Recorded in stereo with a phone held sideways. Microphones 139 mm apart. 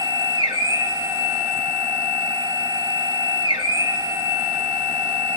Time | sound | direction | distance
0.0 | a machine running | 30° right (ahead or behind) | 1.4 m